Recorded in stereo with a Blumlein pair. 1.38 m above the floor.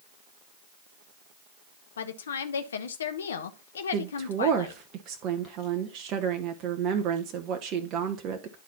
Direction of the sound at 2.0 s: 65° left.